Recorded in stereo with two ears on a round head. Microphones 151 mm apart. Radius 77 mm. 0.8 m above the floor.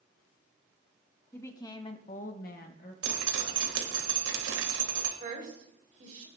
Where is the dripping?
85° right, 1.7 m.